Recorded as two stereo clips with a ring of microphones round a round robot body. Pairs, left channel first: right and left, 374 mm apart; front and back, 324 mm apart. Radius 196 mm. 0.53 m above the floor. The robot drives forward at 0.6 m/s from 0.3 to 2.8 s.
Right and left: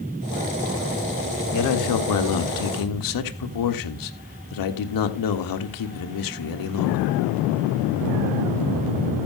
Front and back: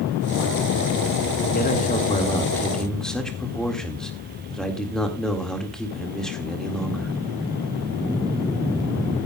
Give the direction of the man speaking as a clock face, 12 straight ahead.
2 o'clock.